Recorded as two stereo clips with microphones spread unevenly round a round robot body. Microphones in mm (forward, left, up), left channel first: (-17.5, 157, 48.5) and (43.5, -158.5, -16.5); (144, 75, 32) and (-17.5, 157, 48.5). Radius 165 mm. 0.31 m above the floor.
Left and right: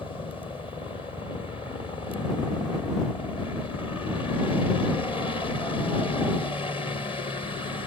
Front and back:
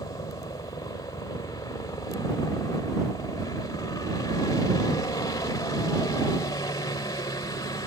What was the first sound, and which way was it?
A helicopter, 20° left.